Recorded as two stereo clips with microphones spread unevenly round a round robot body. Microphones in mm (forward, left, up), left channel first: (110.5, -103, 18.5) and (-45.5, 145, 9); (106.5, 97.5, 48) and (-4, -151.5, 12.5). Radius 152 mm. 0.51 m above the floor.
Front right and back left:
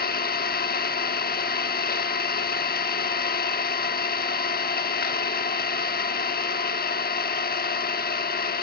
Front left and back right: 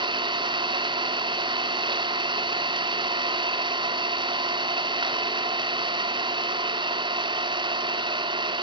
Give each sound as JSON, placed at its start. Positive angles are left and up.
{"t": 0.0, "sound": "an engine running", "azimuth_deg": -75, "distance_m": 0.9}